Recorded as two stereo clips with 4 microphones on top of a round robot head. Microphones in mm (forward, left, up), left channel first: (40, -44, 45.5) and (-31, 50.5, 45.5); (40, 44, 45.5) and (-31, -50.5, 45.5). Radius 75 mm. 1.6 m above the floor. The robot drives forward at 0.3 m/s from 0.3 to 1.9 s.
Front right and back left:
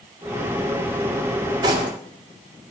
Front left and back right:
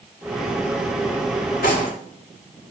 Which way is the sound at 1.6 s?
70° left.